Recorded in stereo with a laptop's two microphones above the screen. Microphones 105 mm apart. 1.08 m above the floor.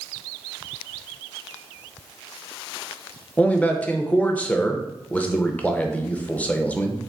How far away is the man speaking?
About 0.7 m.